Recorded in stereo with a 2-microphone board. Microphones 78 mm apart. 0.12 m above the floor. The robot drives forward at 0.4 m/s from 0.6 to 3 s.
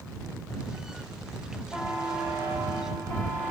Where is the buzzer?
30° left (ahead or behind), 9.5 m; by 3.5 s 35° left (ahead or behind), 9 m.